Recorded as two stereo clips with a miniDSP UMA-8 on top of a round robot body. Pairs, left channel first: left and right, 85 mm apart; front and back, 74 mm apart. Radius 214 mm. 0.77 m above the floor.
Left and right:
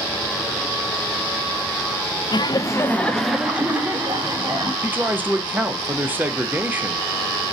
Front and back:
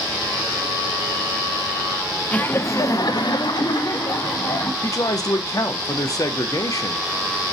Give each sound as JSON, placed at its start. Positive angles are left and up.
{"t": 2.3, "sound": "laughter", "azimuth_deg": 70, "distance_m": 0.6}
{"t": 4.8, "sound": "a man speaking", "azimuth_deg": -25, "distance_m": 0.6}